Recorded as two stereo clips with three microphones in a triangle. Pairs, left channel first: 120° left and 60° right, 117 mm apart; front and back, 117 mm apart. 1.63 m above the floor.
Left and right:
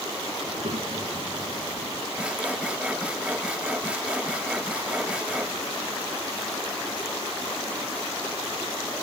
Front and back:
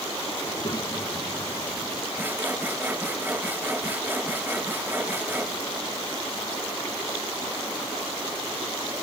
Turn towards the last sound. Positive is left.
turn(degrees=-125)